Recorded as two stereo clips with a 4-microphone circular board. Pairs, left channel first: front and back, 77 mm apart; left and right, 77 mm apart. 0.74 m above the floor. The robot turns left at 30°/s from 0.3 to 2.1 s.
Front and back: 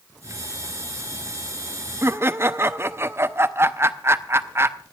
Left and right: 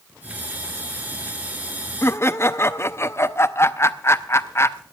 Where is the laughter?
135° left, 0.7 m.